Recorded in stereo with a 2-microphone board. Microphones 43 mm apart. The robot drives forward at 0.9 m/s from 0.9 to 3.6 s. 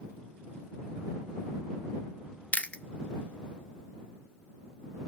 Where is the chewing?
40° left (ahead or behind), 0.5 m; by 2.8 s 25° left (ahead or behind), 0.7 m.